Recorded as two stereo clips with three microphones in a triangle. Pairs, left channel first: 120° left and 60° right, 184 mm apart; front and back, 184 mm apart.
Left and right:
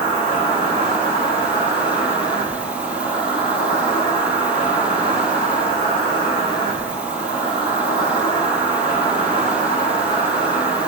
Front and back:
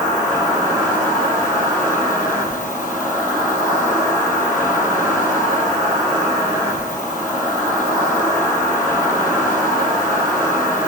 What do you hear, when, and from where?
0.0 s an insect: 80° left, 1.3 m